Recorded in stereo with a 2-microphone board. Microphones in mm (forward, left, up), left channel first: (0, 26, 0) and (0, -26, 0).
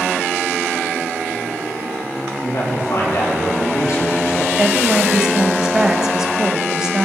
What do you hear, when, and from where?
2.4 s a man speaking: 75° left (ahead or behind), 6.5 m
4.6 s a woman speaking: 10° right (ahead or behind), 1.8 m